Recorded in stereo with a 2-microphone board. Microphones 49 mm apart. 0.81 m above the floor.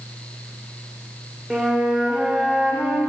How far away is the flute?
About 0.8 m.